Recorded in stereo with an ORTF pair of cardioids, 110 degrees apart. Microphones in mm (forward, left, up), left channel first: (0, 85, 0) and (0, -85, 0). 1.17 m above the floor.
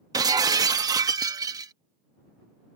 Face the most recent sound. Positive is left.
turn(degrees=-20)